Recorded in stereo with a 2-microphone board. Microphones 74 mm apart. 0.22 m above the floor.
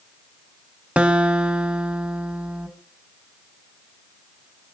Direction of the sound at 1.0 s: 15° right (ahead or behind).